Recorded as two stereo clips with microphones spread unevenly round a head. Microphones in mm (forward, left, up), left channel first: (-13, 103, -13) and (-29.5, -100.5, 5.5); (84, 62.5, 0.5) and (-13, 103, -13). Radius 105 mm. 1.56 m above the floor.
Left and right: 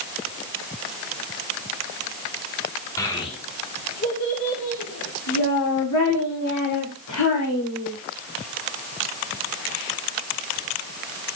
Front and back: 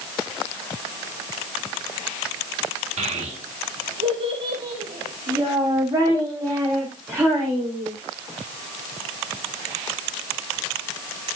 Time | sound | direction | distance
3.0 | a child speaking | 160° left | 1.8 m